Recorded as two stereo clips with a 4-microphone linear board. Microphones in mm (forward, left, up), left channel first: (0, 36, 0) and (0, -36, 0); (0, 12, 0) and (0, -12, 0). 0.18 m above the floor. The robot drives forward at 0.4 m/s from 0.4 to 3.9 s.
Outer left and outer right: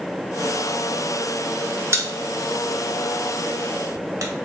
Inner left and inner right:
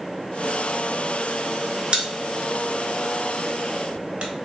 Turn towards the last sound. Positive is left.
turn(degrees=-50)  # may be behind; listen again after turning